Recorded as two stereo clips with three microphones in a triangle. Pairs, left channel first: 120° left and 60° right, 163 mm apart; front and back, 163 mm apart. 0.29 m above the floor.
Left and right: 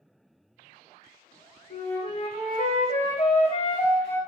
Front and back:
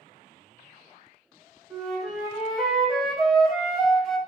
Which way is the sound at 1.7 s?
90° left.